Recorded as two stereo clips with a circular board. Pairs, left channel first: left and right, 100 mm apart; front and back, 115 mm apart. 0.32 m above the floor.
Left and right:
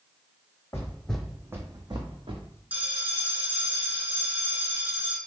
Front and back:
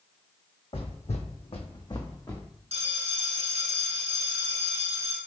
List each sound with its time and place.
0.7 s footsteps: 30° left, 0.8 m; by 2.4 s 65° right, 1.1 m
2.7 s a bell: 160° right, 0.9 m